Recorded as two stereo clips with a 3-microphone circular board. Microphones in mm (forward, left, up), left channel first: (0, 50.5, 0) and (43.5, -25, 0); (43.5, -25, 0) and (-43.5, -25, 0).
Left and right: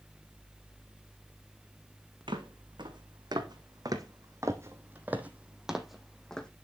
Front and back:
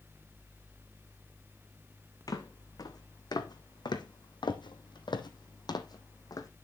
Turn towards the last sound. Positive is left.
turn(degrees=40)